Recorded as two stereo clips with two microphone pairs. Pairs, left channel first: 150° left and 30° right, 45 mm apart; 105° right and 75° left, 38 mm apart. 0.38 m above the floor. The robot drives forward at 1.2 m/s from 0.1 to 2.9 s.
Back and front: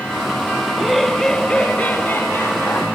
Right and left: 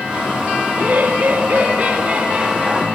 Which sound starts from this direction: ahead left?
Laughter, at 0.7 s.